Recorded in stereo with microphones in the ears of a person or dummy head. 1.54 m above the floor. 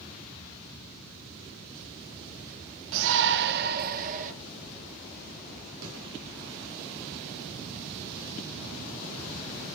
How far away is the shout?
About 1.3 m.